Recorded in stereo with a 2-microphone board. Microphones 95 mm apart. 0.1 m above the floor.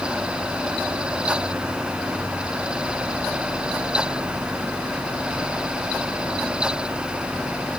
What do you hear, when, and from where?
Only background noise.